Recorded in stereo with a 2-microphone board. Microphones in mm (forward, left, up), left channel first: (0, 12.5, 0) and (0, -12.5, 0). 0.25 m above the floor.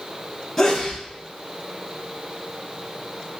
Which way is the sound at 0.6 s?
5° left (ahead or behind).